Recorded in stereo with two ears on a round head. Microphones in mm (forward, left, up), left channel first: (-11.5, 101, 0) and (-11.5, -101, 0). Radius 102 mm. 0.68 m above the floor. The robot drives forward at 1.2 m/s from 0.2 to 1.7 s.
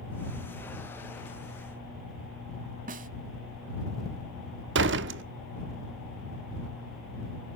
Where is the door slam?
55° right (ahead or behind), 1.0 m.